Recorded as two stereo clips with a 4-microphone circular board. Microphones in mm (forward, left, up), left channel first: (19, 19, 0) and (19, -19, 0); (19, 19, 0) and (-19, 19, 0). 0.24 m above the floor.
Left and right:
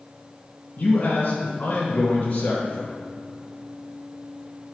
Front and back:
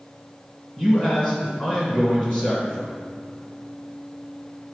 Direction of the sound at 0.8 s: 65° left.